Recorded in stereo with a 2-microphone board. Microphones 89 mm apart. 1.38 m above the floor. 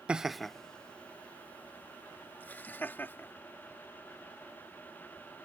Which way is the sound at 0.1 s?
10° right (ahead or behind).